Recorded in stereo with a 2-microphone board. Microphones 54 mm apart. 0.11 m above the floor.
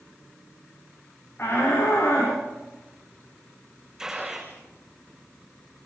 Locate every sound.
1.4 s a shout: 40° left (ahead or behind), 9 m
4.0 s a gunshot: 10° right (ahead or behind), 6 m